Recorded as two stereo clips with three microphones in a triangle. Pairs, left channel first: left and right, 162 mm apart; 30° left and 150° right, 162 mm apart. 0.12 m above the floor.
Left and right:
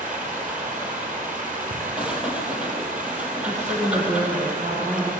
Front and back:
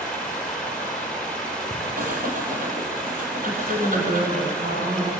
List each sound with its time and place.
0.0 s running water: 55° right, 5.5 m
2.0 s breathing: 175° right, 3 m
3.4 s a woman speaking: 135° right, 6.5 m